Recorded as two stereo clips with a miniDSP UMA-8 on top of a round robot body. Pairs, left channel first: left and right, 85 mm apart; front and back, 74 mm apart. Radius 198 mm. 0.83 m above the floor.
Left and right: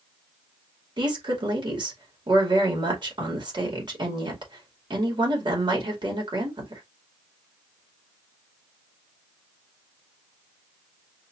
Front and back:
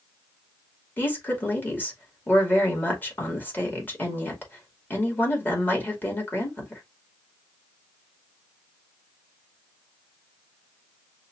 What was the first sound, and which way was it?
A woman speaking, 65° right.